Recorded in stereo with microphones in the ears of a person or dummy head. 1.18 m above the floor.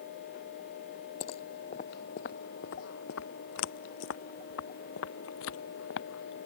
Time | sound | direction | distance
1.2 | footsteps | 30° left (ahead or behind) | ?